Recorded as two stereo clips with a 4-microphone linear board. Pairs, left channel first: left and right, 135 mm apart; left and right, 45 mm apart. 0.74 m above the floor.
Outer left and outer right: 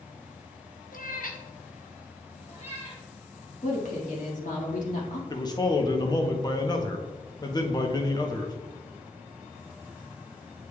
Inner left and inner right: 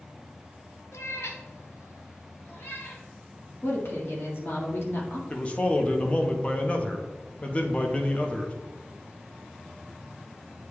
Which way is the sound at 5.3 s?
30° left (ahead or behind).